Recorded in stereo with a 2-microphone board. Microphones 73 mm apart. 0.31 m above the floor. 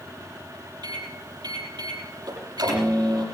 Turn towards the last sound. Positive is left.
turn(degrees=-75)  # may be behind; listen again after turning